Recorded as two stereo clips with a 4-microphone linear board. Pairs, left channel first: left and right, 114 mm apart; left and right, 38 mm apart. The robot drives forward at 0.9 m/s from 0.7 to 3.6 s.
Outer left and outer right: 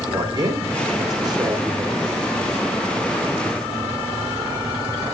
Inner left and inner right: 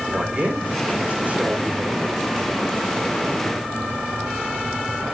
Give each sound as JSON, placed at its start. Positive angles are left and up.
{"t": 0.1, "sound": "a man speaking", "side_deg": -35, "distance_m": 6.5}